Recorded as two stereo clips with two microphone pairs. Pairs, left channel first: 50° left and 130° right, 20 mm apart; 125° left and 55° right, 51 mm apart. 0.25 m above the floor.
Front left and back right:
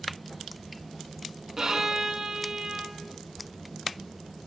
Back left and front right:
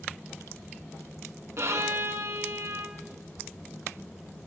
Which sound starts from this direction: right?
A violin, at 1.6 s.